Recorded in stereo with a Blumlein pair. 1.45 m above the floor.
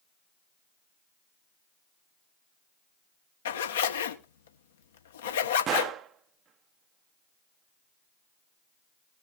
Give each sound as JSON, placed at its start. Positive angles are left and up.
{"t": 3.5, "sound": "a zipper", "azimuth_deg": 60, "distance_m": 1.3}
{"t": 5.7, "sound": "a gunshot", "azimuth_deg": -30, "distance_m": 0.7}